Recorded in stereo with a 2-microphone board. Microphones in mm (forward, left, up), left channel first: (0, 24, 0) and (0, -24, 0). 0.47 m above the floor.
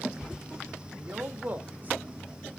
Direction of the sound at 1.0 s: 40° right (ahead or behind).